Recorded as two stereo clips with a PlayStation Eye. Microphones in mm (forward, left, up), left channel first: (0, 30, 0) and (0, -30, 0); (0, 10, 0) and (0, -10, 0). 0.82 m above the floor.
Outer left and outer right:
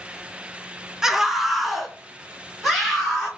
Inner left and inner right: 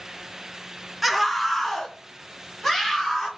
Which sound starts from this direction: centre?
A scream, at 1.0 s.